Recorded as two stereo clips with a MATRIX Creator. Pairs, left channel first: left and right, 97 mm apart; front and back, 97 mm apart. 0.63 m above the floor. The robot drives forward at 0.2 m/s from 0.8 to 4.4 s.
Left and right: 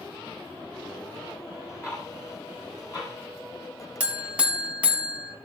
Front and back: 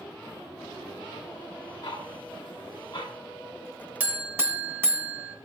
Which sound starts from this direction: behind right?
A buzzer, at 4.0 s.